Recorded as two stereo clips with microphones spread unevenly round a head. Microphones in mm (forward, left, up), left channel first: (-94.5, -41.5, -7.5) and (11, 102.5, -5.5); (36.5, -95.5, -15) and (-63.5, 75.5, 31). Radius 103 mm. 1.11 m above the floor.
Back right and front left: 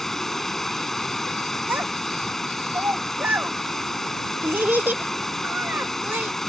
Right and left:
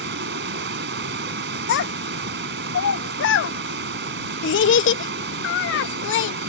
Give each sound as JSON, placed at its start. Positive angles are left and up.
{"t": 0.0, "sound": "running water", "azimuth_deg": 145}
{"t": 1.7, "sound": "a child speaking", "azimuth_deg": -30}